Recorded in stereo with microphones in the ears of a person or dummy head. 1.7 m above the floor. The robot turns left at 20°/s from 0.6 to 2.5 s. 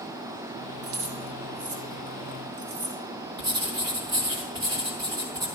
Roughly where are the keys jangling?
Right.